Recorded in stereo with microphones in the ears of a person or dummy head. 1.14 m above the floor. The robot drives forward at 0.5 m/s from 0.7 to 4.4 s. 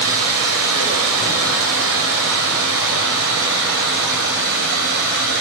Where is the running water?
90° right, 5 m; by 5.4 s 70° right (ahead or behind), 5.5 m.